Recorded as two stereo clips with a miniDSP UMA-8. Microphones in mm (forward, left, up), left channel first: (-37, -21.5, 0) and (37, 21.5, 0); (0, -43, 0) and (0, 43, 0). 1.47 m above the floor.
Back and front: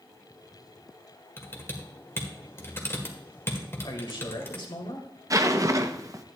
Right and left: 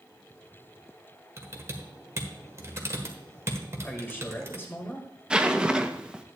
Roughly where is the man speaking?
Behind right.